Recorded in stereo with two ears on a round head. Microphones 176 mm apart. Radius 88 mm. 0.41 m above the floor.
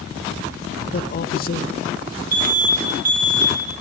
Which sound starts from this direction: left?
A man speaking, at 0.9 s.